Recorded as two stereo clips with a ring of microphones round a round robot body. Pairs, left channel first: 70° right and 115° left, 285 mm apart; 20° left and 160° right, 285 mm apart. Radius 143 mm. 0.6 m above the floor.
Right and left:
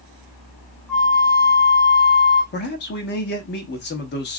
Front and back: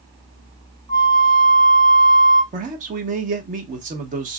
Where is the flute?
155° right, 1.3 m.